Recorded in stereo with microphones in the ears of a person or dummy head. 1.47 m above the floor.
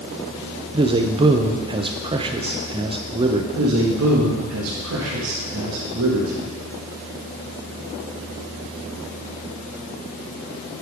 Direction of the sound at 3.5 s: 85° right.